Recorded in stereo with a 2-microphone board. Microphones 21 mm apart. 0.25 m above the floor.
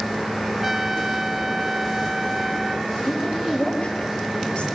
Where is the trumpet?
10° right (ahead or behind), 0.6 m.